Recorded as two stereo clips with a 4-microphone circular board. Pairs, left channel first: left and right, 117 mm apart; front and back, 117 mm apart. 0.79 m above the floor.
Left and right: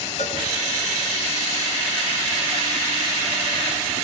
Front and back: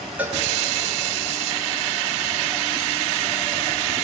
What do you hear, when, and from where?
0.2 s a cowbell: 105° left, 1.9 m